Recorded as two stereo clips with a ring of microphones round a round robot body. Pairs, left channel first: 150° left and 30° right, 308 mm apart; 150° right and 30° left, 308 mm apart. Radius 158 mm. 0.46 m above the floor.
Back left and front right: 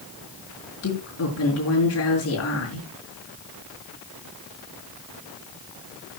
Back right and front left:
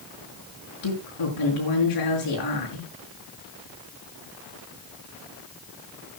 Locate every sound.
0.8 s a woman speaking: 165° right, 6.5 m